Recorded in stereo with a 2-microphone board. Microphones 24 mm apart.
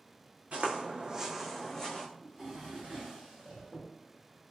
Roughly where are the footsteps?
Right.